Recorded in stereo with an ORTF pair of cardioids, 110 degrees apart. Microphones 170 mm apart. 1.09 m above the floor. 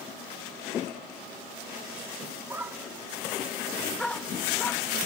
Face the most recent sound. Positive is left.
turn(degrees=15)